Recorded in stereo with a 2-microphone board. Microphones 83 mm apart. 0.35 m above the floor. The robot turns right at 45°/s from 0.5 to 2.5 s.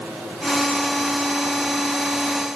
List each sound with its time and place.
Only background noise.